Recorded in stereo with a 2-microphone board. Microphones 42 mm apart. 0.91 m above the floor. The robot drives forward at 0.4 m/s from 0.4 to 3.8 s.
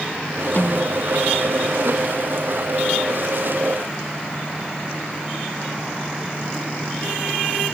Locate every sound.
0.6 s a snare drum: 50° left (ahead or behind)